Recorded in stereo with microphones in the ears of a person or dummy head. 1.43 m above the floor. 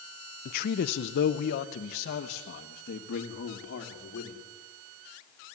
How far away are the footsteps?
I don't hear footsteps.